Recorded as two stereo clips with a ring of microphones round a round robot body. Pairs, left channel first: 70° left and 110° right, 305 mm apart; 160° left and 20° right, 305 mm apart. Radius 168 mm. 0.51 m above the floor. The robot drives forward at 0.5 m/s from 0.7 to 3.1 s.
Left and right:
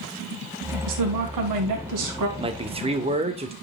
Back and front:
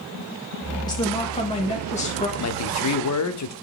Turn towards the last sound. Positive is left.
turn(degrees=180)